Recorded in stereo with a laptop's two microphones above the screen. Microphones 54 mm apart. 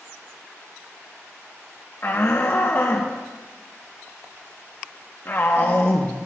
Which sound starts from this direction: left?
A shout, at 2.0 s.